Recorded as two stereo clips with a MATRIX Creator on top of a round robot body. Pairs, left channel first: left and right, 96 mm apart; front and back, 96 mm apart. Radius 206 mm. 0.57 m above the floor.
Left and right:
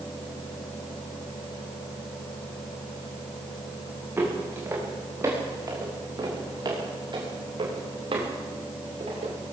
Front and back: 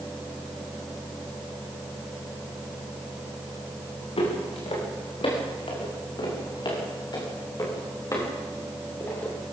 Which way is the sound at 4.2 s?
20° right.